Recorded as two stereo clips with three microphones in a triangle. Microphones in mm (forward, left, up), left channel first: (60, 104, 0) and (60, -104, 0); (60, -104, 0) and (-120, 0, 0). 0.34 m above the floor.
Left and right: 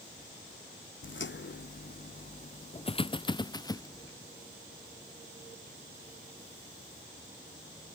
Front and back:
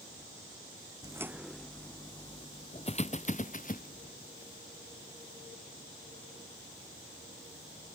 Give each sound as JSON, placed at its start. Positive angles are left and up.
{"t": 1.0, "sound": "footsteps", "azimuth_deg": 80}